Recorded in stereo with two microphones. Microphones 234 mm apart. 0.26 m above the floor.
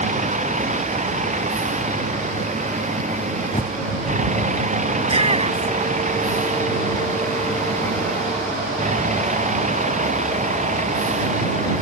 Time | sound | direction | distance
0.0 | a vehicle | 30° right (ahead or behind) | ?
3.5 | a bird | 30° left (ahead or behind) | ?
5.0 | a shout | 25° right (ahead or behind) | ?